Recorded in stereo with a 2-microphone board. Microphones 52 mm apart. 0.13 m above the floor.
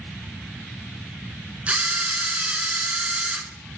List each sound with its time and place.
1.7 s a camera shutter: 25° right (ahead or behind), 1.2 m